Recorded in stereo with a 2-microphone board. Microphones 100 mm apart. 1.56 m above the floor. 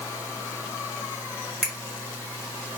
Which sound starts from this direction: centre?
A finger snap, at 1.6 s.